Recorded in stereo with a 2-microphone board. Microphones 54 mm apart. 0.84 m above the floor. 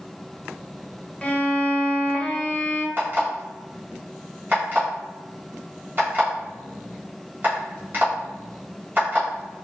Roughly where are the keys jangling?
I don't hear keys jangling.